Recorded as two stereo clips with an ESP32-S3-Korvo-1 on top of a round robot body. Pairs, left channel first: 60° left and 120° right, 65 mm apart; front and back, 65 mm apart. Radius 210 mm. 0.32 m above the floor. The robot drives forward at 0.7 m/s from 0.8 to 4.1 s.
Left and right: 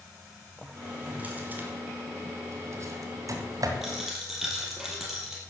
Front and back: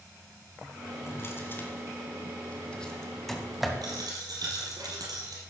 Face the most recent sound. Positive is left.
turn(degrees=155)